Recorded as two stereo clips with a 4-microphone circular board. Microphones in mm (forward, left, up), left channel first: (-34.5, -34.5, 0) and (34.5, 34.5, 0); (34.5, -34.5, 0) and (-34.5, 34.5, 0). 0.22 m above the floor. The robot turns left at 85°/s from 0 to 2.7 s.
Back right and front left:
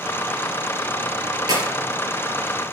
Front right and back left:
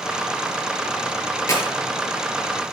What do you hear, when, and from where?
1.5 s a clap: 10° left, 4 m; by 1.6 s straight ahead, 4 m